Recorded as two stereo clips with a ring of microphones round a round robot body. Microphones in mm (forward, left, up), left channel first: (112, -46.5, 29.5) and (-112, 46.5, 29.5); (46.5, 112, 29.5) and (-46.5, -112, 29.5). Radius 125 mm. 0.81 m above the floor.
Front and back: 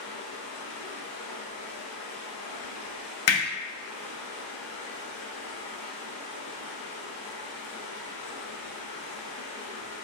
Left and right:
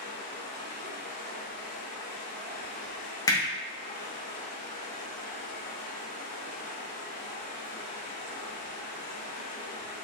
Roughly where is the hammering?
Ahead.